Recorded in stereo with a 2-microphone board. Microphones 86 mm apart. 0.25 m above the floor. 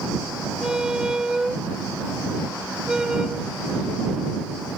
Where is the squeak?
10° right (ahead or behind).